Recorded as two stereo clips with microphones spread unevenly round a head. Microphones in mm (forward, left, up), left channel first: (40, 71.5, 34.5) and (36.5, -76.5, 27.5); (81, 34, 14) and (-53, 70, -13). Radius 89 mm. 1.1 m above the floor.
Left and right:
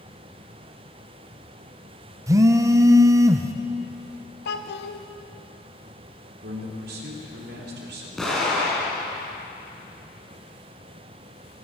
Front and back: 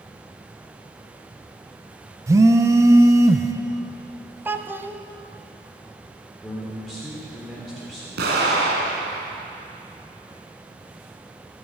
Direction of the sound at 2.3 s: 150° right.